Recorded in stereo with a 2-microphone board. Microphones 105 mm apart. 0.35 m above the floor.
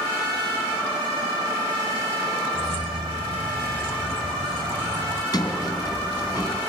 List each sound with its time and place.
2.5 s keys jangling: 60° right (ahead or behind), 1.2 m
5.3 s a sliding door: 40° left (ahead or behind), 2.5 m